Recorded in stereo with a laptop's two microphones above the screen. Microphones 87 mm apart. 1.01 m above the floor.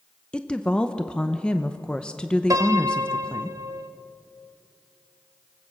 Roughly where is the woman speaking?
Centre.